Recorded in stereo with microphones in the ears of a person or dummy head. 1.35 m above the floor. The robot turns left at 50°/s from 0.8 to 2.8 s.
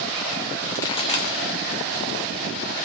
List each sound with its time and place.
0.7 s a pop: 15° left (ahead or behind), 0.6 m; by 1.4 s 45° left (ahead or behind), 0.6 m